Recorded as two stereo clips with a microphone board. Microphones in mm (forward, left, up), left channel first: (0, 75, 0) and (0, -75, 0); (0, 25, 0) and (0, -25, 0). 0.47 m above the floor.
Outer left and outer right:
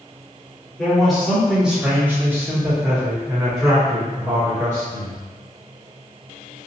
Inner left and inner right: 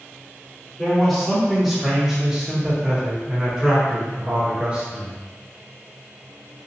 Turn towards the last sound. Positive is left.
turn(degrees=-25)  # may be behind; listen again after turning